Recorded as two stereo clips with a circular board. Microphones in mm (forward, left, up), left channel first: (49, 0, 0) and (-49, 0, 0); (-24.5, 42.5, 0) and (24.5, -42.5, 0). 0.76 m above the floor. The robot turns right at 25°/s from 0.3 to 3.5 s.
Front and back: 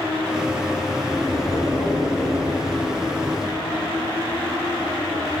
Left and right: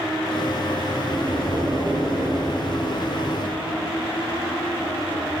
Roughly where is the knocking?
Right.